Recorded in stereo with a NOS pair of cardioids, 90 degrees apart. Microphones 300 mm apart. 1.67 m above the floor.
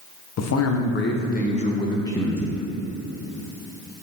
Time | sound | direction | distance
0.4 | a man speaking | 60° left | 1.4 m